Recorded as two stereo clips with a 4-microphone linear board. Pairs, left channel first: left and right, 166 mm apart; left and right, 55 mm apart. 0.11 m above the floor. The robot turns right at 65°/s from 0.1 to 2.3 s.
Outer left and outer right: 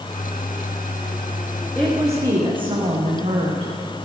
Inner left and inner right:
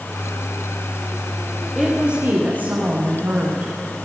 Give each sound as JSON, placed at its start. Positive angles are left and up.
{"t": 1.8, "sound": "a woman speaking", "azimuth_deg": 175, "distance_m": 7.5}